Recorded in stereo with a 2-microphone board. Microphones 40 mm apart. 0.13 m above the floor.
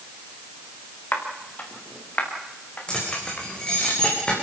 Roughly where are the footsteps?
Left.